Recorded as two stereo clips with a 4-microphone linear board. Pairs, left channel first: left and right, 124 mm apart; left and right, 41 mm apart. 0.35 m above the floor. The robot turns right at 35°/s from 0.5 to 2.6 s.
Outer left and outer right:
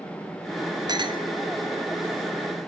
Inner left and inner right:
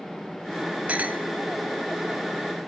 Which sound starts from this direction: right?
A clink, at 0.9 s.